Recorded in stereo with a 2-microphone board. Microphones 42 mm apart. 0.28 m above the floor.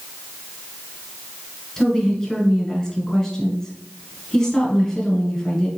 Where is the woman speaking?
10° left (ahead or behind), 1.8 m.